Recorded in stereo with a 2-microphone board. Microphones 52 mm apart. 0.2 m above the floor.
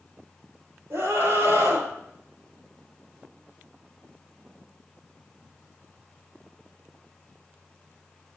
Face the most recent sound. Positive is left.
turn(degrees=-65)  # may be behind; listen again after turning